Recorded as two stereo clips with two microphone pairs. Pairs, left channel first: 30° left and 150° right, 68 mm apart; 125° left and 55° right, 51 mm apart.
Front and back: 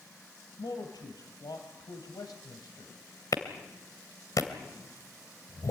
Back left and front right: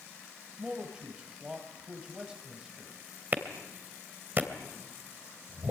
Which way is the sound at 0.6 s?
15° left.